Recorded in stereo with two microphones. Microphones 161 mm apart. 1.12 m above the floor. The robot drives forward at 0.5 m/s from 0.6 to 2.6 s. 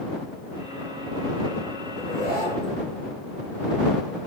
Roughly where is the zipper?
Left.